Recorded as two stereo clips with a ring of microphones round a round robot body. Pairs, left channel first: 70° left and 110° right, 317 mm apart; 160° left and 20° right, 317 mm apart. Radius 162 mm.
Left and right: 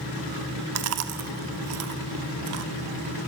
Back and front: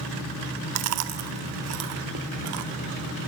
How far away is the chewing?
About 0.9 m.